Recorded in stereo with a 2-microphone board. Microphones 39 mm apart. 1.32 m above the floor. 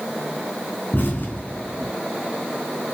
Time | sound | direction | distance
0.9 | an explosion | 55° left (ahead or behind) | 3 m